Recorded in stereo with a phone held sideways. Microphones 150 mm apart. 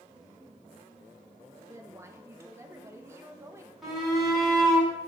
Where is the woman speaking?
20° right (ahead or behind), 1.2 m.